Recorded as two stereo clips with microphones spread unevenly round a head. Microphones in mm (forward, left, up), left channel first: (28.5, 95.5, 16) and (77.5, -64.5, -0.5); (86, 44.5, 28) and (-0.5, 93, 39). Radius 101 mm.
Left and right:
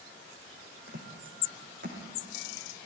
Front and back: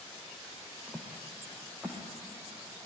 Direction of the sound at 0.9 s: 125° right.